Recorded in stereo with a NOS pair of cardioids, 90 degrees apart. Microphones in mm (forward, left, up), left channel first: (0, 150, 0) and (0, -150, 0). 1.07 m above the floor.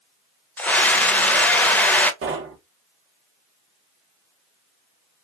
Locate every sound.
0.6 s a scream: 5° left, 0.6 m
2.2 s knocking: 45° right, 0.7 m